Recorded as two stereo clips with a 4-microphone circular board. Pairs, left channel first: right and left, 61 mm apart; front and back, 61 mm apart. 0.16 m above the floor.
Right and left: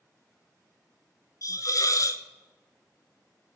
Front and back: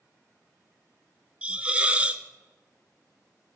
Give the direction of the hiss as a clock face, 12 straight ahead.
4 o'clock.